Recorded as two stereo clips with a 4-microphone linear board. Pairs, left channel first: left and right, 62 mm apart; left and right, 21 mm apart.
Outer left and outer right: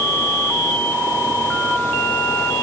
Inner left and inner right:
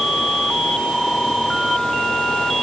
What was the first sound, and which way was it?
Only background noise.